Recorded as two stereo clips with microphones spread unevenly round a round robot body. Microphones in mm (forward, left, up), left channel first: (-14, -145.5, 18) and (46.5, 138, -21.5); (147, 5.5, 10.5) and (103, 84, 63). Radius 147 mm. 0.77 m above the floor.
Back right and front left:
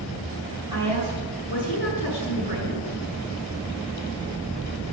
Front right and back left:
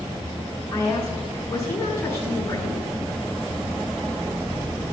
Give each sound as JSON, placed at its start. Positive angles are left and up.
{"t": 0.7, "sound": "a woman speaking", "azimuth_deg": 5, "distance_m": 6.5}